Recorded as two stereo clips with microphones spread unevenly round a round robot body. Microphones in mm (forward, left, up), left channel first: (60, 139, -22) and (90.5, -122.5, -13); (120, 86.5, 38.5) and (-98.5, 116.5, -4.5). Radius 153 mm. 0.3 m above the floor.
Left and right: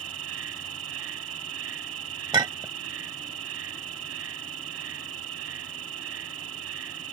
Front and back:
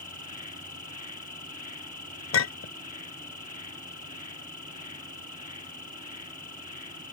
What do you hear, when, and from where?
0.0 s an insect: 70° right
2.3 s a clink: 10° right